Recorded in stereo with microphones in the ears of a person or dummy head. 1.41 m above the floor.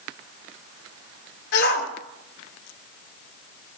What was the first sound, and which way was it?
A shout, 60° left (ahead or behind).